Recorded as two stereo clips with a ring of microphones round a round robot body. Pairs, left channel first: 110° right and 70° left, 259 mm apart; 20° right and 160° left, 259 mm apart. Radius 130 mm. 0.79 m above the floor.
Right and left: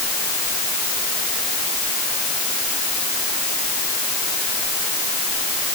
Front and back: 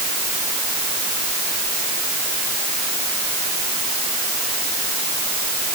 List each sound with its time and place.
Only background noise.